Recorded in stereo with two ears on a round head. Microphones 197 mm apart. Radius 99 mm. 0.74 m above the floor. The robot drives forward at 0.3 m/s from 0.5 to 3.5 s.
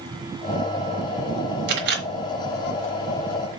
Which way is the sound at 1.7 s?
55° right (ahead or behind).